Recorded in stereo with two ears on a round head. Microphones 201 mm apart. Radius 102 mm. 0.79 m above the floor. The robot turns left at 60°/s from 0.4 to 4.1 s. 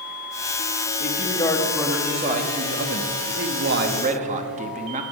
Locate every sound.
1.0 s a man speaking: 45° left, 1.3 m; by 5.0 s 140° right, 1.3 m